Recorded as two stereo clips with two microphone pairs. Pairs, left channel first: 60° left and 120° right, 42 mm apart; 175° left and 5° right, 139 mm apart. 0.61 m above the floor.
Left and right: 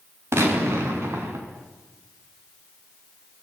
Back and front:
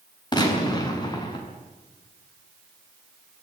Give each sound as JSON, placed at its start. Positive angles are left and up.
{"t": 0.3, "sound": "a gunshot", "azimuth_deg": -125, "distance_m": 7.0}